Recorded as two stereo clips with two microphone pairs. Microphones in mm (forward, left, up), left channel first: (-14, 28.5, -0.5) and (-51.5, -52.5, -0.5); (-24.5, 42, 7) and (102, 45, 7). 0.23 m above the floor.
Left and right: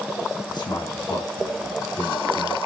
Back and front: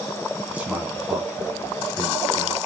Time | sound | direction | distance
0.5 | a man speaking | 75° left | 2.5 m